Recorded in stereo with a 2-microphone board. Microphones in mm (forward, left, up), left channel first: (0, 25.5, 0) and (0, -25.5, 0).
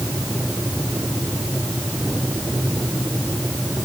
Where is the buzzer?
I don't hear a buzzer.